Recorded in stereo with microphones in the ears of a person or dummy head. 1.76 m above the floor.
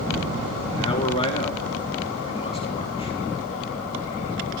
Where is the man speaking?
25° left (ahead or behind), 2.5 m.